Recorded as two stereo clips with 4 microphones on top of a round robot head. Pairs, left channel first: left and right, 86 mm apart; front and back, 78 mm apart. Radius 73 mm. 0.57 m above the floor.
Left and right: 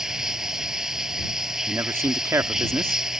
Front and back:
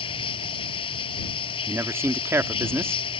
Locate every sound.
0.0 s running water: 5° right
1.7 s a man speaking: 135° right